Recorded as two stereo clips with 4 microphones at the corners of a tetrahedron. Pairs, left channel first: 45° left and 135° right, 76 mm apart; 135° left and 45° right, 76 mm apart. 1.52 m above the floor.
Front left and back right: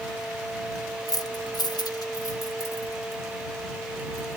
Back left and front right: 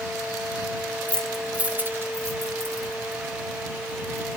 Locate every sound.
1.1 s keys jangling: 70° left; by 4.4 s 5° right